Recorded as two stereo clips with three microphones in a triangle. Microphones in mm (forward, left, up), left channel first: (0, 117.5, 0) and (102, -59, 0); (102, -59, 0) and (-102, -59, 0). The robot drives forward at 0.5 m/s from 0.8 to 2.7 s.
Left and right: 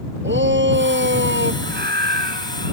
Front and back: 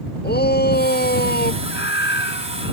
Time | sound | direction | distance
0.2 | a shout | 35° right | ?
1.6 | a scream | 25° right | ?